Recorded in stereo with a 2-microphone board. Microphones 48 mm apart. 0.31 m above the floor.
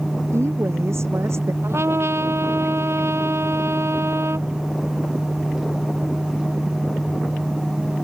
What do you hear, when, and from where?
0.3 s a woman speaking: 70° right (ahead or behind)
1.6 s a trumpet: 65° right (ahead or behind)